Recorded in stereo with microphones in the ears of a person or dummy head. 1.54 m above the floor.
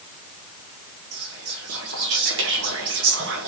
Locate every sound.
1.1 s whispering: 70° right (ahead or behind), 1.0 m